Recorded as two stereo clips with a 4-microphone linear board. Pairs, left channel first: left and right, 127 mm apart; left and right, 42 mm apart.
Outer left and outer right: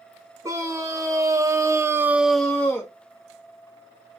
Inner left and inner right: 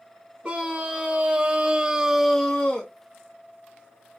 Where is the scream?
25° right (ahead or behind), 1.8 m; by 2.9 s 15° left (ahead or behind), 0.9 m.